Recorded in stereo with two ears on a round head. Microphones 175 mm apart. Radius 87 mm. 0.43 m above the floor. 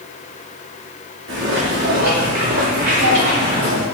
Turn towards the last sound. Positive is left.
turn(degrees=-25)  # may be behind; listen again after turning